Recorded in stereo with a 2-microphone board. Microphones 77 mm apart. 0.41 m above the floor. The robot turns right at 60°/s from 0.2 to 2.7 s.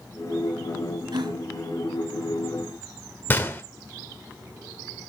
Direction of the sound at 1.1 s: 70° right (ahead or behind).